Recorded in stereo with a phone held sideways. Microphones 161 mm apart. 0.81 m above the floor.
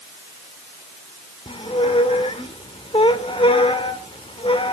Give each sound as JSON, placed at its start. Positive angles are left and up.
{"t": 1.5, "sound": "a squeak", "side_deg": 35, "distance_m": 1.6}